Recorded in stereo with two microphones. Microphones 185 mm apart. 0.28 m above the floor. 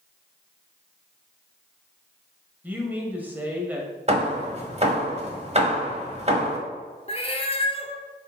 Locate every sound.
2.6 s a man speaking: 10° right (ahead or behind), 1.3 m
4.1 s hammering: 35° right (ahead or behind), 1.2 m
7.1 s a cat meowing: 30° left (ahead or behind), 0.8 m